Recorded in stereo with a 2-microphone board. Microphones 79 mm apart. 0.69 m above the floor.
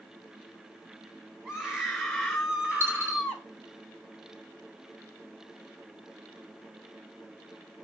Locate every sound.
1.4 s a scream: 5° right (ahead or behind), 3.5 m; by 3.5 s 15° right (ahead or behind), 2.5 m
2.8 s a dropped coin: 30° right (ahead or behind), 4 m